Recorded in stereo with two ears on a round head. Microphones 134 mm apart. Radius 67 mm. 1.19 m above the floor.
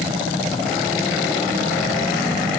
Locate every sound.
Only background noise.